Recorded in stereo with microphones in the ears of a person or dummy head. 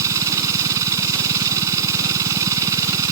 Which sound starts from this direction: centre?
A machine running, at 0.0 s.